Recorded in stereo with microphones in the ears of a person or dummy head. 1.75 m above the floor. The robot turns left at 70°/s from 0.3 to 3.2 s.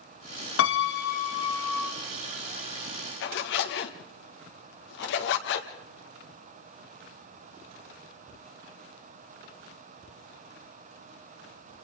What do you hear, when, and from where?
0.6 s a piano: 95° left, 1.4 m; by 1.9 s 5° left, 1.4 m
3.2 s a zipper: 75° left (ahead or behind), 1.7 m